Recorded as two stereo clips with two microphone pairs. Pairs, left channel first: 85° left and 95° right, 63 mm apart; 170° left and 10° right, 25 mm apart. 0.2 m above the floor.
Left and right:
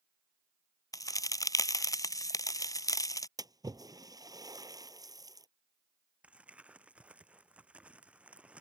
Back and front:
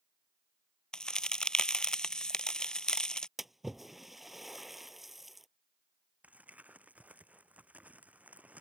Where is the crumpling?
25° right.